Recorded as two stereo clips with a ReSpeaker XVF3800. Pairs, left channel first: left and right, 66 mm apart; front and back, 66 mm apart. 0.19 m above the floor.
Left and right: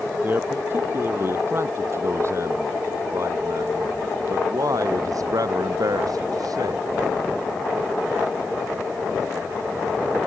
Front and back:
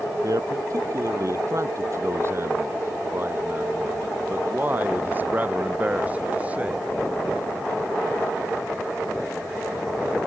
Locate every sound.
0.2 s a man speaking: 150° right; by 6.9 s 110° right